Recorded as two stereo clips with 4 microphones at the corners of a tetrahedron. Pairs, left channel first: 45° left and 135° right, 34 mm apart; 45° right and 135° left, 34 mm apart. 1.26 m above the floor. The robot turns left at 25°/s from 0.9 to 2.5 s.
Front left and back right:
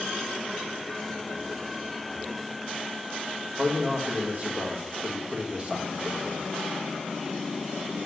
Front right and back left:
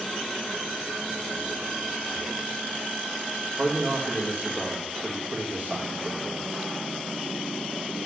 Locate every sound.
3.6 s a man speaking: 170° left, 1.6 m